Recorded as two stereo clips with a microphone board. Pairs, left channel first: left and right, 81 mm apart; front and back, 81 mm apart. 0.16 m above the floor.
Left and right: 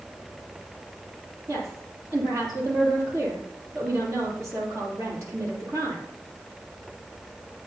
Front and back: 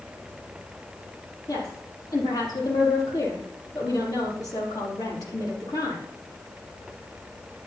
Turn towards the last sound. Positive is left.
turn(degrees=-40)